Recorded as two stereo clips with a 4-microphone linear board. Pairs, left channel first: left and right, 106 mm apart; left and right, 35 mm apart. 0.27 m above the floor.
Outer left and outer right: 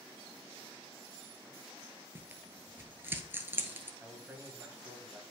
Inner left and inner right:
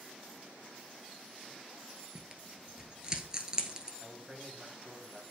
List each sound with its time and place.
2.1 s tearing paper: 20° right (ahead or behind), 1.0 m
4.0 s a man speaking: 20° right (ahead or behind), 1.5 m